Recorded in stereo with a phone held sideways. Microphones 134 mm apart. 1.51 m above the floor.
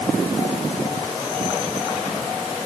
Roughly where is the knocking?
I don't hear knocking.